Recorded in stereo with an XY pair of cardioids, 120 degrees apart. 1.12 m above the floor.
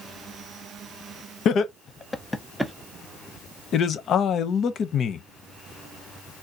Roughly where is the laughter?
Ahead left.